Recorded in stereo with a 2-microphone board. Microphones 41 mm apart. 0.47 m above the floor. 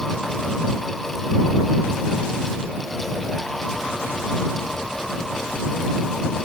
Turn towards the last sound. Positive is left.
No sound to turn to.